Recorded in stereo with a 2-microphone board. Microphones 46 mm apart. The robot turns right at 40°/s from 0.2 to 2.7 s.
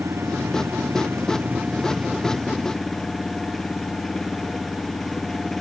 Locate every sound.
0.0 s an engine running: 95° right; by 5.6 s 5° left